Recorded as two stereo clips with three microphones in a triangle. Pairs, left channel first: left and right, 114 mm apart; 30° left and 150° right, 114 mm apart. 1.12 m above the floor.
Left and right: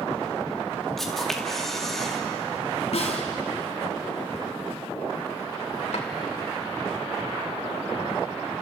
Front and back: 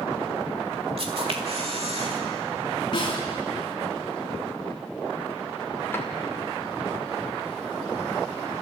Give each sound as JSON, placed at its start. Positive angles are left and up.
{"t": 1.0, "sound": "a camera shutter", "azimuth_deg": 180, "distance_m": 2.5}
{"t": 2.9, "sound": "a snare drum", "azimuth_deg": 75, "distance_m": 3.5}
{"t": 5.9, "sound": "a drawer", "azimuth_deg": 100, "distance_m": 2.5}